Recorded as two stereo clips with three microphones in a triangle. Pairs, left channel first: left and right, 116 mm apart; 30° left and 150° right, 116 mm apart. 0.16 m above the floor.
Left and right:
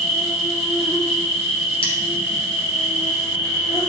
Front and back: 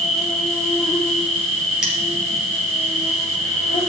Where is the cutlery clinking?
125° left, 2 m.